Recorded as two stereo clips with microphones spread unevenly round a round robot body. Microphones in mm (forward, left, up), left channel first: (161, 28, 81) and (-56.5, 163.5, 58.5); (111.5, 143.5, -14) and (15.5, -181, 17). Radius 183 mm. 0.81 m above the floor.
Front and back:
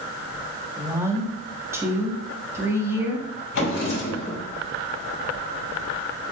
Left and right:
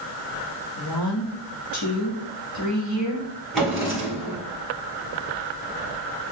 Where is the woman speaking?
75° left, 1.3 m.